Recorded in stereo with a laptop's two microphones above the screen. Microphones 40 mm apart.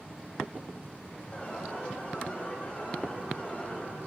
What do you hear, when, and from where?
1.3 s an alarm: 30° left (ahead or behind), 6 m